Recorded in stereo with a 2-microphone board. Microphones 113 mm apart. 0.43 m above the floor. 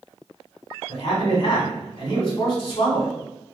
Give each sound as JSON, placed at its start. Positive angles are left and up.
{"t": 0.9, "sound": "a man speaking", "side_deg": 50, "distance_m": 1.8}